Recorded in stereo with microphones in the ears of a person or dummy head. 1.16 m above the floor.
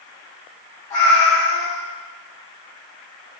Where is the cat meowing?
20° left (ahead or behind), 1.0 m.